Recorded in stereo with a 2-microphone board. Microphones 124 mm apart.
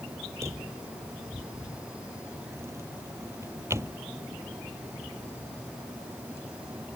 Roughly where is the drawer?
Right.